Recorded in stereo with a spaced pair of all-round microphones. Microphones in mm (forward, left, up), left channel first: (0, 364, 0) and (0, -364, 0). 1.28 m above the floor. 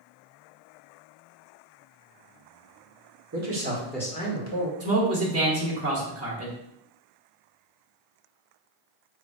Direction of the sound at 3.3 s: 25° right (ahead or behind).